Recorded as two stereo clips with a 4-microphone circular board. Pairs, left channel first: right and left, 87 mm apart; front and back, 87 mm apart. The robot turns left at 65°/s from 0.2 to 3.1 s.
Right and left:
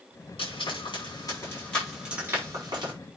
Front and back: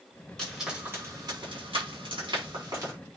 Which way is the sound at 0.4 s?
80° right.